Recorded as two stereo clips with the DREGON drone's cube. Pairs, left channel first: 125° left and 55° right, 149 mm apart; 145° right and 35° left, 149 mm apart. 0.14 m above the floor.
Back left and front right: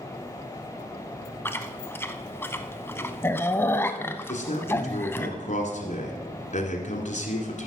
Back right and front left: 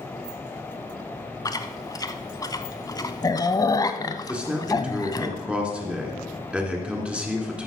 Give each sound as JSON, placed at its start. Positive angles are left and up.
{"t": 1.4, "sound": "chewing", "azimuth_deg": 180, "distance_m": 0.6}
{"t": 4.3, "sound": "a man speaking", "azimuth_deg": 115, "distance_m": 1.7}